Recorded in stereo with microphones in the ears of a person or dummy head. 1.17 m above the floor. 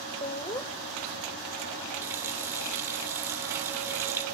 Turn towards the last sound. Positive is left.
turn(degrees=-15)  # may be behind; listen again after turning